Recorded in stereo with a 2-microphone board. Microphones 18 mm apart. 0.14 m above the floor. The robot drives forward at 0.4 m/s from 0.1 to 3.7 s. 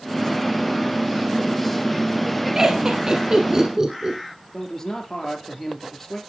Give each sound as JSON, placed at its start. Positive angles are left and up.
{"t": 2.5, "sound": "laughter", "side_deg": -35, "distance_m": 1.6}
{"t": 4.5, "sound": "a man speaking", "side_deg": 20, "distance_m": 3.5}